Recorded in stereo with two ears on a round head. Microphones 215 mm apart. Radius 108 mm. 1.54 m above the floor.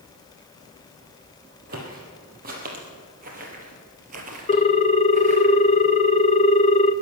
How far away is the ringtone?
About 0.5 m.